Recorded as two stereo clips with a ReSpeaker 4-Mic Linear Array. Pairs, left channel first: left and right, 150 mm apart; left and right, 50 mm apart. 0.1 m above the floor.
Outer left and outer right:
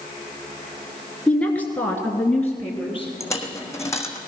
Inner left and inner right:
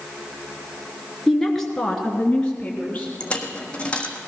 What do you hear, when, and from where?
1.3 s a woman speaking: 5° left (ahead or behind), 1.7 m; by 3.1 s 10° left (ahead or behind), 2 m
3.2 s a dropped coin: 20° left (ahead or behind), 1.4 m